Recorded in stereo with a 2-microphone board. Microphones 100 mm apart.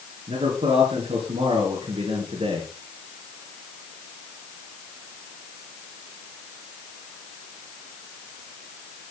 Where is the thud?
I don't hear a thud.